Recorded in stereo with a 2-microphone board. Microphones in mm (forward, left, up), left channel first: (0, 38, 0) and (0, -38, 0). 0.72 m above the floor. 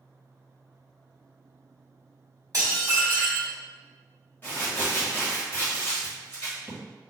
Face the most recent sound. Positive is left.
turn(degrees=20)  # may be behind; listen again after turning